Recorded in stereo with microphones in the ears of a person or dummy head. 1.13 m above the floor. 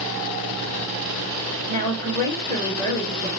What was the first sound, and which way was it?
A woman speaking, 20° left (ahead or behind).